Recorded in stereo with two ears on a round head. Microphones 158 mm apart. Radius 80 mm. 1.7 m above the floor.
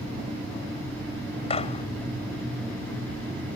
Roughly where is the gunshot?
Left.